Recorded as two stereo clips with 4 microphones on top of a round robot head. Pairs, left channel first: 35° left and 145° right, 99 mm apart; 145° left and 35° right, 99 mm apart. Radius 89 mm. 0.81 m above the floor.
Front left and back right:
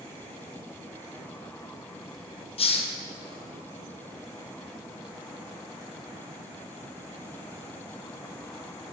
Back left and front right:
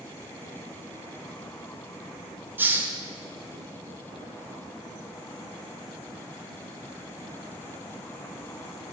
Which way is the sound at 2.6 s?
35° left.